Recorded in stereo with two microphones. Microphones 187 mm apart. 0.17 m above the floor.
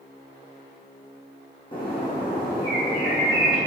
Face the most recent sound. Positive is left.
turn(degrees=25)  # may be behind; listen again after turning